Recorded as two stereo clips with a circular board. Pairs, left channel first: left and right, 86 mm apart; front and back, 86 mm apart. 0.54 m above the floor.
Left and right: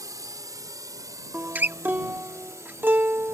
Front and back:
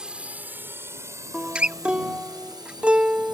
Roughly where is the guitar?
Behind right.